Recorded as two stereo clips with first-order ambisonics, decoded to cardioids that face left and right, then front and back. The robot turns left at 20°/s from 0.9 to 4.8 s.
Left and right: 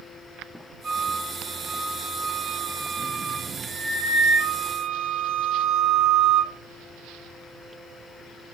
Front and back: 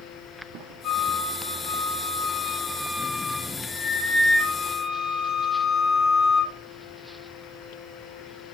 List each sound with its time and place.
0.8 s a flute: 45° right, 1.5 m; by 6.5 s 125° right, 1.5 m